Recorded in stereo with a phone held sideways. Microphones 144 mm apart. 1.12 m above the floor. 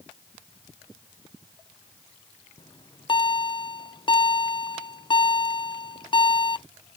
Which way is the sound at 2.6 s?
35° left (ahead or behind).